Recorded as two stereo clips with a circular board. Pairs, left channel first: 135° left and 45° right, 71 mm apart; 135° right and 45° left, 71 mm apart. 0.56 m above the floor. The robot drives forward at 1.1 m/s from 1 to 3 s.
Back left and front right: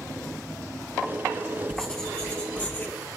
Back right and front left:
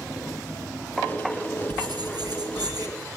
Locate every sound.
1.7 s writing: 55° left, 4.5 m; by 2.9 s 70° left, 3.5 m